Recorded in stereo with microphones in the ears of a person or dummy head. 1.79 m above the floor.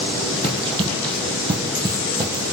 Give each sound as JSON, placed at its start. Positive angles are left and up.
{"t": 0.4, "sound": "running footsteps", "side_deg": -30, "distance_m": 4.5}